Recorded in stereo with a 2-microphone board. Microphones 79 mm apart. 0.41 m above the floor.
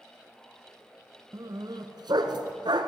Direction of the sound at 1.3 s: 55° right (ahead or behind).